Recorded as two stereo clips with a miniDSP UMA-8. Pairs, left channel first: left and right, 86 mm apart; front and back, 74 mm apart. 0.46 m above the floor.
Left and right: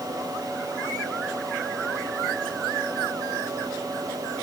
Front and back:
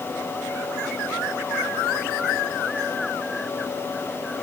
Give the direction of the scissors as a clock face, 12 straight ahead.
No scissors in this recording.